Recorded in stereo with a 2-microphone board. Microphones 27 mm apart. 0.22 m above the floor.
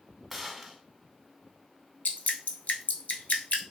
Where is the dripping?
65° left (ahead or behind), 0.8 m.